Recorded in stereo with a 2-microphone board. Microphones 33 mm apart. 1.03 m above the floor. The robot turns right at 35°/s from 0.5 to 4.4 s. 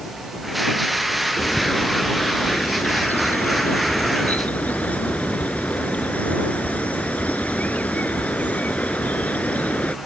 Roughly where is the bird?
Ahead left.